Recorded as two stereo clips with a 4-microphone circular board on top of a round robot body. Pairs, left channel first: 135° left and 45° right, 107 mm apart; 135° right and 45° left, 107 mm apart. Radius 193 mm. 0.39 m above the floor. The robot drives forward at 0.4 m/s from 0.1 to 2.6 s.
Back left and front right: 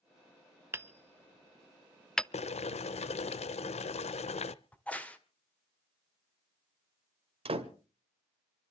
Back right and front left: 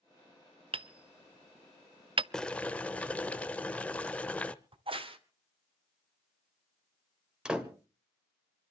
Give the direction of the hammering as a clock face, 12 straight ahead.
11 o'clock.